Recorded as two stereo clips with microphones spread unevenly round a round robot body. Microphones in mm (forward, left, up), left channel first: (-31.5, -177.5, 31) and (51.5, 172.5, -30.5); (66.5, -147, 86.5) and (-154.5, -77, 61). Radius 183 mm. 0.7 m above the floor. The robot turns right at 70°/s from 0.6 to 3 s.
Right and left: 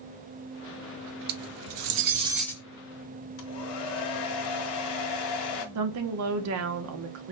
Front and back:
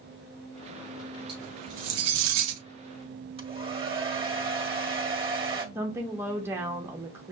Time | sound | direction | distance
1.3 | cutlery clinking | 90° left | 0.5 m
3.4 | a hair dryer | 130° right | 1.5 m
5.8 | a woman speaking | 90° left | 0.7 m